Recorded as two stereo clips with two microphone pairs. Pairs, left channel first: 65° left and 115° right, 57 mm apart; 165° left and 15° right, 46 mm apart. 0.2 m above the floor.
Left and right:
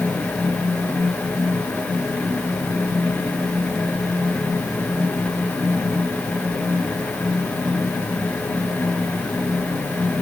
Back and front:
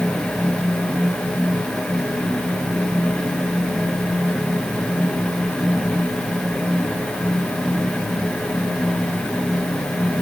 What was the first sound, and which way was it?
Only background noise.